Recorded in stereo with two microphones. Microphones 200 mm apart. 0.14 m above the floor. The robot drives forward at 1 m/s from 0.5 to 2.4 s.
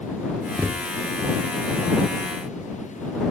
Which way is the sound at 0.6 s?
10° right (ahead or behind).